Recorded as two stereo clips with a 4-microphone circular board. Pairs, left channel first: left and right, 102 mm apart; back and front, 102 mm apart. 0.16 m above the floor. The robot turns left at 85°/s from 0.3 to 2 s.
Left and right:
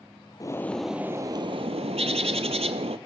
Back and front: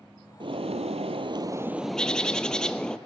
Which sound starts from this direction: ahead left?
A bird, at 0.4 s.